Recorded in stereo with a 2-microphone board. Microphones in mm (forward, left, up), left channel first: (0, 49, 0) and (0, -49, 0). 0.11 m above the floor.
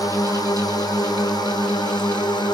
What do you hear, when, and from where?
0.0 s a drone: 40° left (ahead or behind); by 2.5 s 45° left (ahead or behind)